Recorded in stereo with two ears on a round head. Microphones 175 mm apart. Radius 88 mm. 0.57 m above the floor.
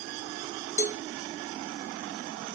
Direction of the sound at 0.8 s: 35° left (ahead or behind).